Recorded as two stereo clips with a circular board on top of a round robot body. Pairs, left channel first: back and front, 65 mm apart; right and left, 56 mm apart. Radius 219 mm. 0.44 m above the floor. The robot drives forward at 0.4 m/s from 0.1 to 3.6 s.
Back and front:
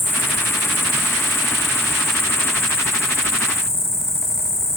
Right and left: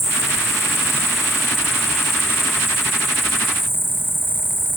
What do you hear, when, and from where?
0.0 s an insect: 125° right; by 4.8 s 135° right